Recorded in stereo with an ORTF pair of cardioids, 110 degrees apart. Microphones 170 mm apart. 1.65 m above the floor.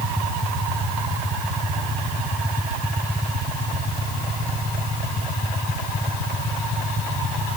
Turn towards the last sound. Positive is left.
No sound to turn to.